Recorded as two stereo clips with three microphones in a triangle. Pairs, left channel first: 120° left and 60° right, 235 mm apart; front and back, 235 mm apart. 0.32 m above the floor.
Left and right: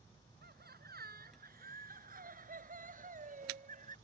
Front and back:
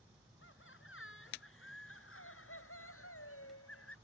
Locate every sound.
0.4 s laughter: 20° right; by 4.0 s 5° right